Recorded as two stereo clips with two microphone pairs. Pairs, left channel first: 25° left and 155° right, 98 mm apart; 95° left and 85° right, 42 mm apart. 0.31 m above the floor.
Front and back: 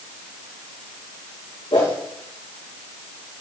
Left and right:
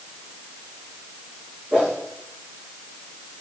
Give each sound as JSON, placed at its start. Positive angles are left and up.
{"t": 1.7, "sound": "a whoosh", "azimuth_deg": -15, "distance_m": 5.0}